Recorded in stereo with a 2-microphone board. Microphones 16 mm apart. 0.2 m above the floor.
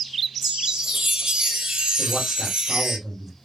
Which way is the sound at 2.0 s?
15° right (ahead or behind).